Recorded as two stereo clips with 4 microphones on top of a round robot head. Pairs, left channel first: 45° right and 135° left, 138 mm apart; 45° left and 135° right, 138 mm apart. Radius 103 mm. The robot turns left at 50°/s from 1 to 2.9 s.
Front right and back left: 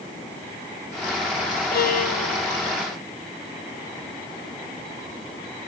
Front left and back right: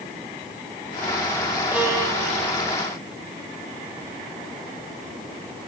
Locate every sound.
1.7 s a violin: 55° right, 1.7 m; by 2.5 s 95° right, 1.7 m